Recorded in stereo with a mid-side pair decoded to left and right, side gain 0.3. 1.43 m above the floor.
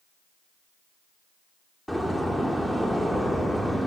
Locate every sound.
1.9 s a door slam: 5° left, 2.5 m